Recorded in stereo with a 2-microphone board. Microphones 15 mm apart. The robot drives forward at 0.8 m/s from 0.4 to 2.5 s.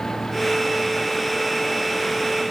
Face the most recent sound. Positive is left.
No sound to turn to.